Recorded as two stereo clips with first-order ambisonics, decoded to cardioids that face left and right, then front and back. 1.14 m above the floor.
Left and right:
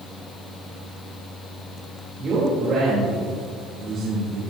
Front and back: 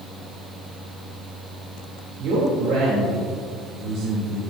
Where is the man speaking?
150° right, 3 m.